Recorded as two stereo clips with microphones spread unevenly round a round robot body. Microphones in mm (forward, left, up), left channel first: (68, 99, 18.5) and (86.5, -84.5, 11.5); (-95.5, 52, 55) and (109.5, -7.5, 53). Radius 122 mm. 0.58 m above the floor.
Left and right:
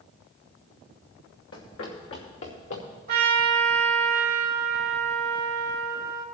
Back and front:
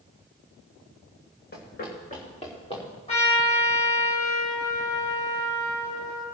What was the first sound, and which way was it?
Running footsteps, 120° left.